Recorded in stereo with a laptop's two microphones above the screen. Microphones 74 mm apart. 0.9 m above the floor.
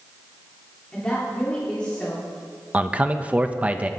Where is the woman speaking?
20° left (ahead or behind), 1.8 m.